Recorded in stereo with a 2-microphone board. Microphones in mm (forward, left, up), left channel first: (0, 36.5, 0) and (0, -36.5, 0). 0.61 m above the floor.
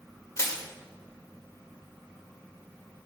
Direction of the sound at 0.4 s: 40° left (ahead or behind).